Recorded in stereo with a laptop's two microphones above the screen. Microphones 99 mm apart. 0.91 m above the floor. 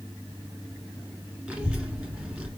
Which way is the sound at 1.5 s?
15° right (ahead or behind).